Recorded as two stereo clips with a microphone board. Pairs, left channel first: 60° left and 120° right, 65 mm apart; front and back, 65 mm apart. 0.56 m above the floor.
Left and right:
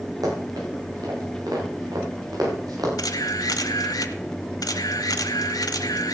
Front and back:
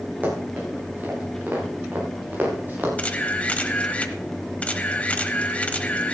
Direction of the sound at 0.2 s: 115° right.